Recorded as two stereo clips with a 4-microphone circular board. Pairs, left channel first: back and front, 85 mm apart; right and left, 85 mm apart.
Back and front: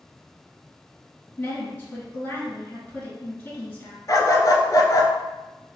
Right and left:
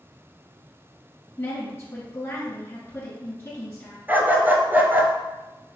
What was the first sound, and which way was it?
A woman speaking, 125° right.